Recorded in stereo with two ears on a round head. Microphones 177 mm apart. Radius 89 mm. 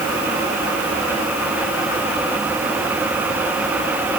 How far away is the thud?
No thud in this recording.